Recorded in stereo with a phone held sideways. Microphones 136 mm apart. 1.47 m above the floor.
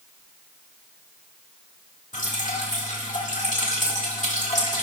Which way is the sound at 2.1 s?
65° left (ahead or behind).